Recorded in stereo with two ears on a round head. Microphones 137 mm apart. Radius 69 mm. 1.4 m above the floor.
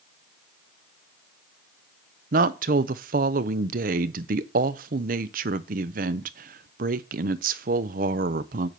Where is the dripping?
No dripping in this recording.